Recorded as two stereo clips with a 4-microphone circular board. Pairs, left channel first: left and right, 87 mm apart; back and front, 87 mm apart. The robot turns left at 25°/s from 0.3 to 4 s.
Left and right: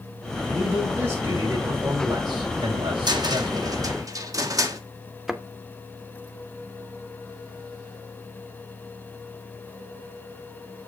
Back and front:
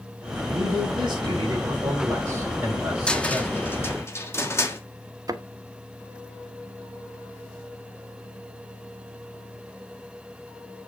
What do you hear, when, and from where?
0.5 s a man speaking: 10° right, 5 m; by 3.8 s 95° right, 5 m
3.1 s a cupboard door: 105° right, 1.3 m; by 4.8 s 125° right, 1.3 m
5.3 s a thud: 5° right, 0.9 m